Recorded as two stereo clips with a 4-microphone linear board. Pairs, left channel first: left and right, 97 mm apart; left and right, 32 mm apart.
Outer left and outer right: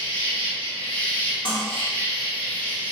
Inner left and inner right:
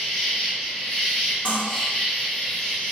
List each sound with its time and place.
0.0 s an insect: 15° left (ahead or behind), 1.2 m
1.4 s cutlery clinking: 50° left (ahead or behind), 1.1 m